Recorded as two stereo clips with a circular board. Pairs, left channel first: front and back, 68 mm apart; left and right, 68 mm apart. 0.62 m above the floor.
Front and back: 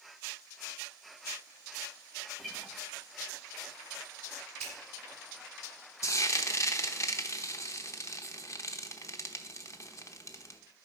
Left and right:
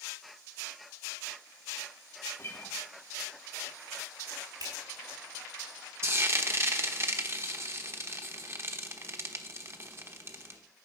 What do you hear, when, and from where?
2.4 s a guitar: 85° left, 1.3 m
4.6 s a finger snap: 80° right, 4 m
6.0 s frying: 40° right, 0.9 m